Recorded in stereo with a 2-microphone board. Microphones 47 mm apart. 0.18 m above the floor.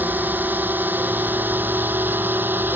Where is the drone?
40° right (ahead or behind); by 2.8 s 45° right (ahead or behind).